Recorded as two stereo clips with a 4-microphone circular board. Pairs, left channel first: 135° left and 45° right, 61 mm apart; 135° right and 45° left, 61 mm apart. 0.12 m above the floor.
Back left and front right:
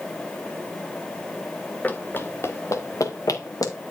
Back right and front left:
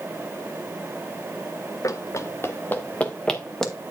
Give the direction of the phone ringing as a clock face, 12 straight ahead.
No phone ringing in this recording.